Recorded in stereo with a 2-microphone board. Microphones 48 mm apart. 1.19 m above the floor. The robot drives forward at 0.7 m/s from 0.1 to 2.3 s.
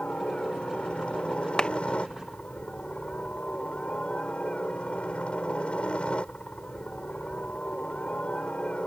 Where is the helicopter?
25° left (ahead or behind); by 8.9 s 20° left (ahead or behind).